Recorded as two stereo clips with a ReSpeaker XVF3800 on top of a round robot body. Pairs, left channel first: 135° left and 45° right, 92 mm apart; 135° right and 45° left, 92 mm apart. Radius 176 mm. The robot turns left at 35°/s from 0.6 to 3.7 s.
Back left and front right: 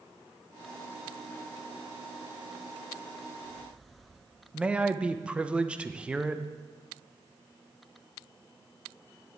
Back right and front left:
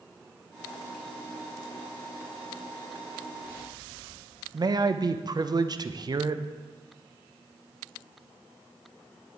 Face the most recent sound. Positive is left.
turn(degrees=30)